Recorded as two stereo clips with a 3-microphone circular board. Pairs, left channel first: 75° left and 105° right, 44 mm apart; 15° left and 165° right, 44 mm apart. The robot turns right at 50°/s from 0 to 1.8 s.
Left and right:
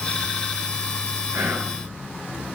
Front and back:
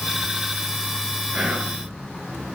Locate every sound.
1.3 s whispering: 105° right, 5 m; by 1.8 s 85° right, 5 m